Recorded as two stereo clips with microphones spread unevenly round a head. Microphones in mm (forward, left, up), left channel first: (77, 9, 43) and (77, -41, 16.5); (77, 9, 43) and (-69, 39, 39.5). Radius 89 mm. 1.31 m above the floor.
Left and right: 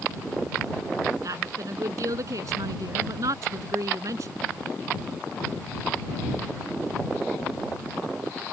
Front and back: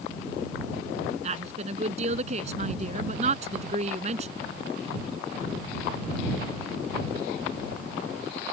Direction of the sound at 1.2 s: 135° right.